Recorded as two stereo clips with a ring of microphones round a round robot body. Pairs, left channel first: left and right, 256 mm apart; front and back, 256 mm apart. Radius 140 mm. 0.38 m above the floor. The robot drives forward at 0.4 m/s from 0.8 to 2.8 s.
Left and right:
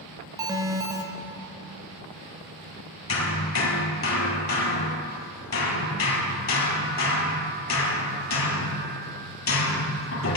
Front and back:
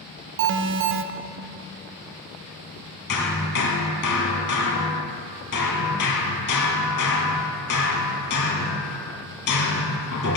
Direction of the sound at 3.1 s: 55° left.